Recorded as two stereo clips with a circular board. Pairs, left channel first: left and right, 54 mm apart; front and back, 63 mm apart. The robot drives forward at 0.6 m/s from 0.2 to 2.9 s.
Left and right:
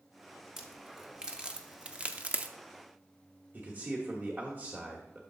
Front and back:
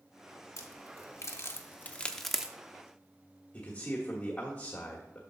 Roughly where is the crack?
Ahead.